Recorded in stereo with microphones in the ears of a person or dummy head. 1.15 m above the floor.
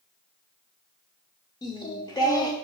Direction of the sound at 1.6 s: 15° left (ahead or behind).